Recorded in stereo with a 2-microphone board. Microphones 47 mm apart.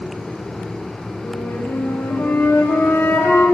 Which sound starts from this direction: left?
A flute, at 1.2 s.